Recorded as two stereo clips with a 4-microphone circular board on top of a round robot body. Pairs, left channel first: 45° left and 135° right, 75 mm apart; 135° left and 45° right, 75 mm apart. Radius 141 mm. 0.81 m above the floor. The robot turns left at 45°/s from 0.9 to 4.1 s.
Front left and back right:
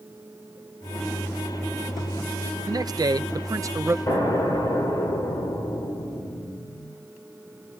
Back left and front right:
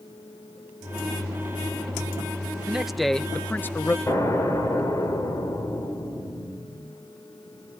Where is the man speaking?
120° right, 0.6 m; by 4.0 s straight behind, 0.6 m.